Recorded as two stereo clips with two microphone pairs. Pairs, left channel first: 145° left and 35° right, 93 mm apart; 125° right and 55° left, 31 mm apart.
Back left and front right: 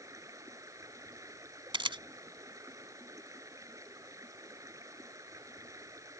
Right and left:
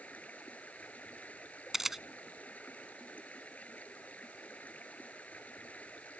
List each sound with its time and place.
0.0 s running water: 90° right
1.7 s a camera shutter: 20° right